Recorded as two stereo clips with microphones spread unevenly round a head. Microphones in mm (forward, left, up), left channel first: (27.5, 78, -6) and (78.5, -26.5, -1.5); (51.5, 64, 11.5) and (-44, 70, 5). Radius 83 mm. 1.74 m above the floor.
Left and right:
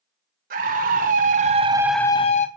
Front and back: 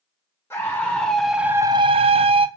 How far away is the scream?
About 1.7 m.